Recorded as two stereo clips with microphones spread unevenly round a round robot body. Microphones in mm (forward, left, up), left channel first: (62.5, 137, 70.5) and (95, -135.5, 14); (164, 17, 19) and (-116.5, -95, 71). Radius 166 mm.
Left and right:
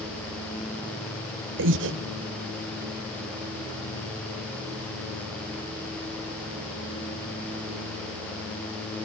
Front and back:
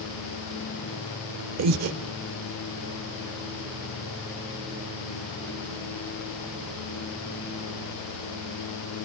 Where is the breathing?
120° right, 1.0 m.